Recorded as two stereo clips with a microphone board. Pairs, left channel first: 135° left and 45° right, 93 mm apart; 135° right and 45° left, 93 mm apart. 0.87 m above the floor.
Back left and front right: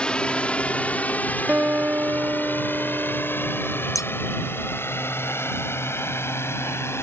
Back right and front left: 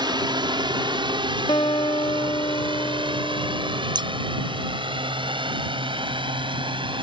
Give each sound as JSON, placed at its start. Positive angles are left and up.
{"t": 0.0, "sound": "a drone", "azimuth_deg": 60}
{"t": 1.5, "sound": "a guitar", "azimuth_deg": -110}
{"t": 4.0, "sound": "scissors", "azimuth_deg": 80}